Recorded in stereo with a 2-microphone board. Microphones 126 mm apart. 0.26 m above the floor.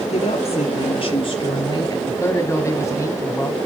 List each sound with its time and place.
0.1 s a woman speaking: 55° left (ahead or behind), 6 m; by 2.0 s 30° left (ahead or behind), 4 m
2.1 s a man speaking: 20° left (ahead or behind), 2 m